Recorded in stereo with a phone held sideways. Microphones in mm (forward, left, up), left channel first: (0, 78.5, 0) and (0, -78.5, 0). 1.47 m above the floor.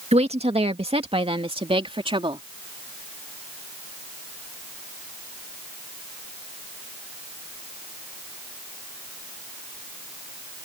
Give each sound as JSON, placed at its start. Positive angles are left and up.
{"t": 0.1, "sound": "a woman speaking", "side_deg": -40}